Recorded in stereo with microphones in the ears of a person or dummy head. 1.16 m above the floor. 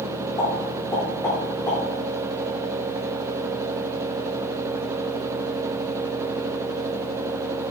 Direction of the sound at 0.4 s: 20° left (ahead or behind).